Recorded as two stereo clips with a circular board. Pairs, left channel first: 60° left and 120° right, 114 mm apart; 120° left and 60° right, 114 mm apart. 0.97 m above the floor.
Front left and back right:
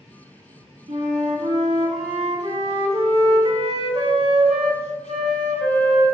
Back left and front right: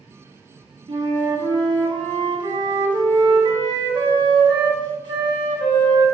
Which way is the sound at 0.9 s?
100° right.